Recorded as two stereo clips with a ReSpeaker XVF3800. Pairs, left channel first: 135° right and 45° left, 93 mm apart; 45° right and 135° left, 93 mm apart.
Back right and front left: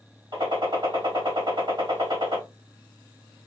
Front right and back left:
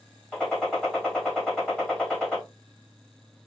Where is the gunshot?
35° left, 2.5 m.